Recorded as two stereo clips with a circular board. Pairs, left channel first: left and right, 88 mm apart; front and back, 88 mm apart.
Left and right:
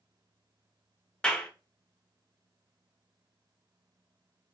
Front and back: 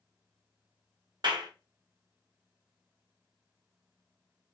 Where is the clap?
170° left, 0.7 m.